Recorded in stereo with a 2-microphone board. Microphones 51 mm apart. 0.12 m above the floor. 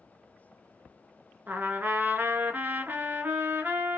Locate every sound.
1.5 s a trumpet: 35° right (ahead or behind), 0.6 m